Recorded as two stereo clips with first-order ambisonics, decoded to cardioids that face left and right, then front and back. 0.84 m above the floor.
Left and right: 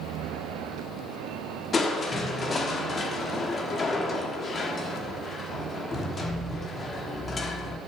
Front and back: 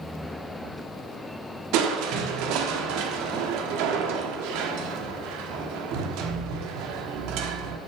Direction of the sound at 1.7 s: 160° left.